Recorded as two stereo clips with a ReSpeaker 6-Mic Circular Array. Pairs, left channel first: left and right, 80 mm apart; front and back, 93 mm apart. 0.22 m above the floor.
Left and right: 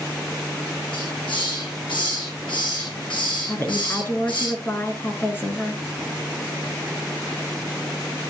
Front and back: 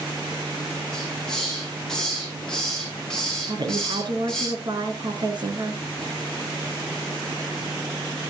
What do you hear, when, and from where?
0.9 s a hiss: 85° left, 8 m
3.5 s a woman speaking: 150° left, 2.5 m